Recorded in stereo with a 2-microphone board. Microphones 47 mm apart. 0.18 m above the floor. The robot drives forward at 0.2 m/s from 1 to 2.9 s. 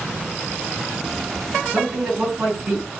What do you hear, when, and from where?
1.7 s a man speaking: 15° right (ahead or behind), 1.7 m; by 2.9 s 10° right (ahead or behind), 1.8 m